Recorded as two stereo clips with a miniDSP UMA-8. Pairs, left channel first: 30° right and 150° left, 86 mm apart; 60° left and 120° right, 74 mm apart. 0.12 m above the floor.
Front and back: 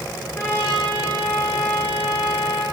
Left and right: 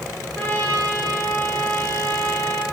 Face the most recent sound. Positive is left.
turn(degrees=5)